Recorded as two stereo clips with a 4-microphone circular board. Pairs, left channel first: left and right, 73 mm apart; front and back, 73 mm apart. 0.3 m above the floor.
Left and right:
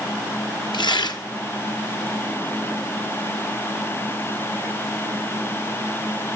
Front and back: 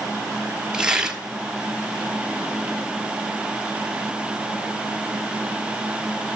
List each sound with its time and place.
0.7 s tearing paper: 100° left, 1.3 m